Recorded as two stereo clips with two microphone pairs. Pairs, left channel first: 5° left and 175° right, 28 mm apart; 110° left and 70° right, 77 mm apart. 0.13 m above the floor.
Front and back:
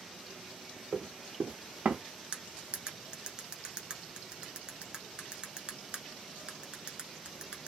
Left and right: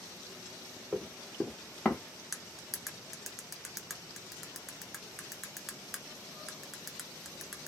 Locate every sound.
0.9 s running footsteps: 155° right, 1.1 m; by 2.0 s straight behind, 0.7 m
2.3 s cutlery clinking: 155° right, 0.7 m